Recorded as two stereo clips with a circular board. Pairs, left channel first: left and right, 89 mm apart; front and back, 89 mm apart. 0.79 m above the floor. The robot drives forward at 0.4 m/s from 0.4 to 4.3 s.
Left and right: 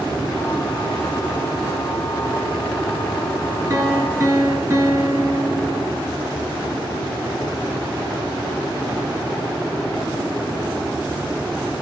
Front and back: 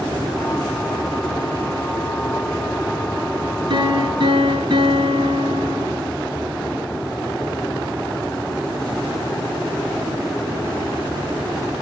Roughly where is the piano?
Behind right.